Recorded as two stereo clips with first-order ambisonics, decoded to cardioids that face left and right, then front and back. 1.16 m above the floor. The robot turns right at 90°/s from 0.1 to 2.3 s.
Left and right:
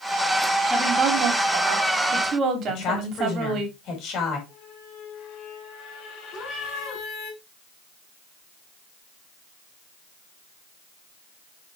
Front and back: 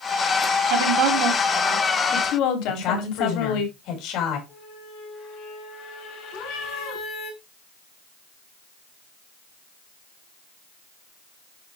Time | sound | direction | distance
0.7 | a woman speaking | 175° right | 2.5 m
2.7 | a woman speaking | 40° left | 5 m
4.5 | a squeak | 45° left | 3 m
6.3 | a cat meowing | straight ahead | 5.5 m